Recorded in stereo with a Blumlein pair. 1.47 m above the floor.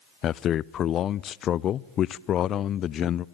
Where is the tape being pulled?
No tape being pulled in this recording.